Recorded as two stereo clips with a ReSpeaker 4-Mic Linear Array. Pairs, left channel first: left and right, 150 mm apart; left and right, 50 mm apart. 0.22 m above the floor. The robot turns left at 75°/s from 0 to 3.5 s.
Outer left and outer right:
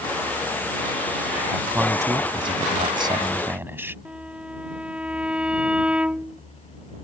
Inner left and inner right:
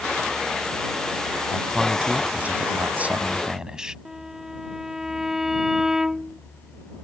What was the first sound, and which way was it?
A man speaking, 5° right.